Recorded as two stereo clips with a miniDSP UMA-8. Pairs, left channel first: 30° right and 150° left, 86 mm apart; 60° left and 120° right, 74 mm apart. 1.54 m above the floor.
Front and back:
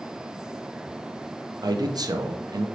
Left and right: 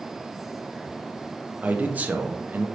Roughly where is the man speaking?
Behind.